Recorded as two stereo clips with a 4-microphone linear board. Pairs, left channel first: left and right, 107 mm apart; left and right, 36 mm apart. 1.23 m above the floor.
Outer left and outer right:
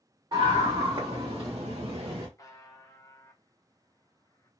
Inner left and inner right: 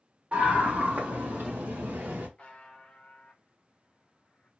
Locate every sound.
0.3 s a scream: 40° right (ahead or behind), 1.6 m; by 2.3 s 50° right (ahead or behind), 1.0 m
2.4 s a buzzer: 30° left (ahead or behind), 0.7 m